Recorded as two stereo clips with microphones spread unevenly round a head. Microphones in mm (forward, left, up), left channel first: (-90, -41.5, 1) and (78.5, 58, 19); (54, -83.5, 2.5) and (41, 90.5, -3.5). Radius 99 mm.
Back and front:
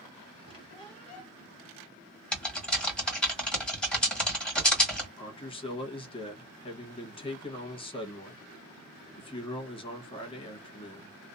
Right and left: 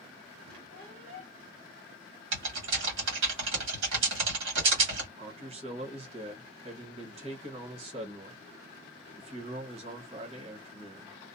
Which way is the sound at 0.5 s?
145° left.